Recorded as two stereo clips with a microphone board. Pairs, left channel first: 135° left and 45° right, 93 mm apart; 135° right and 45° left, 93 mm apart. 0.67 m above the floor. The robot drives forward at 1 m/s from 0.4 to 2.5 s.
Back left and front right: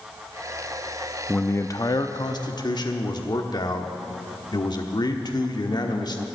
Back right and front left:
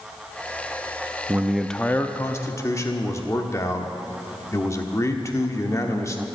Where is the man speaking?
65° left, 0.6 m; by 6.3 s 170° left, 1.2 m.